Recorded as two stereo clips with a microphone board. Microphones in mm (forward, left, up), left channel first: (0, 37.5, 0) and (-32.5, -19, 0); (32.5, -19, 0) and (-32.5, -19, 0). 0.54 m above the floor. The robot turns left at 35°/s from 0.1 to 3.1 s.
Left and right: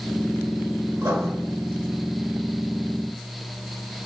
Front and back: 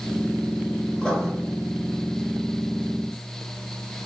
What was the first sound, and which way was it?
Writing, 75° right.